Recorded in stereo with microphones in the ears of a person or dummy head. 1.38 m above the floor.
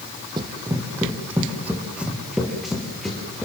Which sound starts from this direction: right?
Running footsteps, at 0.4 s.